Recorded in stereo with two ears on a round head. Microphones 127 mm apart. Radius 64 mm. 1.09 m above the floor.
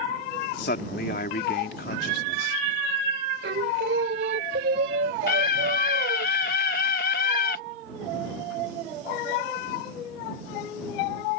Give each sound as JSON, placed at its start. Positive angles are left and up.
{"t": 0.6, "sound": "a man speaking", "side_deg": 70}
{"t": 3.4, "sound": "singing", "side_deg": -85}
{"t": 5.3, "sound": "a scream", "side_deg": 70}